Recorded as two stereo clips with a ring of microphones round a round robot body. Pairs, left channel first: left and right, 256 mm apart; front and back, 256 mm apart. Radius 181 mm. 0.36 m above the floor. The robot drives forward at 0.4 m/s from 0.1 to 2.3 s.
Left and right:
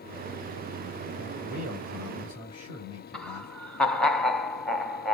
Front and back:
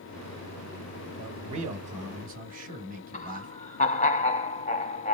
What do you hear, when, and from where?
1.2 s a man speaking: 165° left, 2.5 m; by 3.5 s 170° left, 3 m
3.1 s laughter: 5° left, 0.8 m